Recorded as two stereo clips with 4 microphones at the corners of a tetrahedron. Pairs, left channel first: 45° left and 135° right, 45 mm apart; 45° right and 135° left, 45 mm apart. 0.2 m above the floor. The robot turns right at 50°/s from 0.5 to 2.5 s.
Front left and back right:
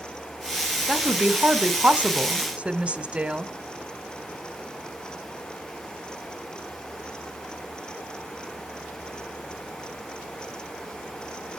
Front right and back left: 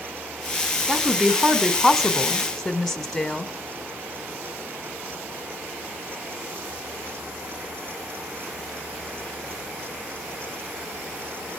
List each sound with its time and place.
0.9 s a woman speaking: 160° left, 1.1 m; by 3.5 s 115° right, 1.1 m